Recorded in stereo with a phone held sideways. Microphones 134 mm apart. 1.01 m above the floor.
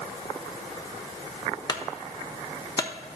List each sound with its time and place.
1.7 s a clunk: 30° left (ahead or behind), 0.7 m